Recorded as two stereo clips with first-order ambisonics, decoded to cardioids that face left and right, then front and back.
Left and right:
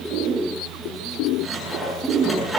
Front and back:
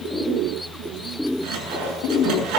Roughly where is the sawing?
Behind.